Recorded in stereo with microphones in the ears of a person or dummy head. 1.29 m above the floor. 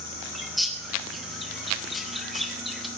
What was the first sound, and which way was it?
A bird, centre (ahead or behind).